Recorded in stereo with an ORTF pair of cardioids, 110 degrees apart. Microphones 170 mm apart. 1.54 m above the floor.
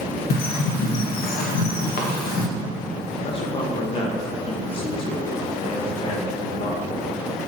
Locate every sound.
0.3 s a bird: 65° left, 1.5 m
3.2 s a man speaking: 35° left, 1.6 m